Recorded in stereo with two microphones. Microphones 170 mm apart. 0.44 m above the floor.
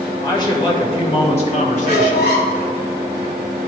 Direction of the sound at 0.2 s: 20° left (ahead or behind).